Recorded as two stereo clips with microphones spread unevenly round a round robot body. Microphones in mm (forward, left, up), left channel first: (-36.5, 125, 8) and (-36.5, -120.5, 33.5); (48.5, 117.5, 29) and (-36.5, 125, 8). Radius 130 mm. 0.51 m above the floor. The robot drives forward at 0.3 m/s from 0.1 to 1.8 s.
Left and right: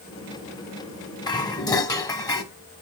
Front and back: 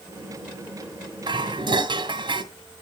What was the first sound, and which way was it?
Dishes clattering, 160° left.